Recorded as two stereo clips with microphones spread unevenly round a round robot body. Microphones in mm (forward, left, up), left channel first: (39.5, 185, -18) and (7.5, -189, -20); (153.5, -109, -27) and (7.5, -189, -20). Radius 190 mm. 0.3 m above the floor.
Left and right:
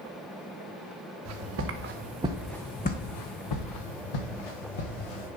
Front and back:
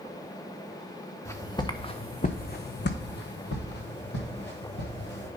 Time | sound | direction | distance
1.2 | footsteps | 45° right | 1.7 m